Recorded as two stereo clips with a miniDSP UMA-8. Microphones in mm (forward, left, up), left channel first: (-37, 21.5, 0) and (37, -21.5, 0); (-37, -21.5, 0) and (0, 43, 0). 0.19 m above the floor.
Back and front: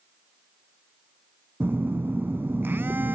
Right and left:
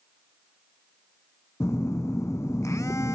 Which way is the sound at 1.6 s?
90° right.